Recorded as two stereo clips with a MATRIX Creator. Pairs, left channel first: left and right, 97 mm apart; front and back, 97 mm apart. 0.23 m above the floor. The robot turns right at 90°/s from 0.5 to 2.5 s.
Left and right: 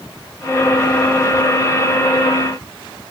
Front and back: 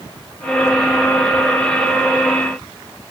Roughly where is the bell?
No bell in this recording.